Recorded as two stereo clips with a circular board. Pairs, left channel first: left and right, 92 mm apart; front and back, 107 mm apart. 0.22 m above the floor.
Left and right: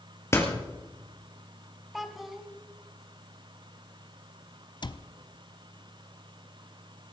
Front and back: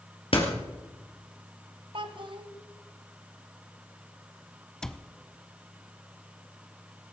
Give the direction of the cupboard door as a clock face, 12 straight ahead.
9 o'clock.